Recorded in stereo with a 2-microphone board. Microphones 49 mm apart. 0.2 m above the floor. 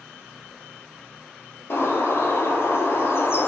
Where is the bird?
55° left (ahead or behind), 0.7 m.